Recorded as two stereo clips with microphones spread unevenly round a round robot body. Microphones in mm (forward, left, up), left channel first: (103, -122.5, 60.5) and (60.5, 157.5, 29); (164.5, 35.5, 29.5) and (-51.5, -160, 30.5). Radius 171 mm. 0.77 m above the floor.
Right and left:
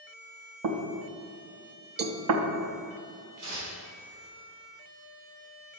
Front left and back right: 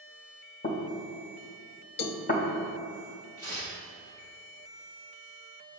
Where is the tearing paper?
70° left, 3 m.